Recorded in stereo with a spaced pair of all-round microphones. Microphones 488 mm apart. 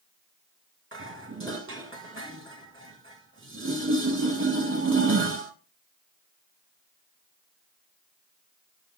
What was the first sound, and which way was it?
Dishes clattering, 25° right (ahead or behind).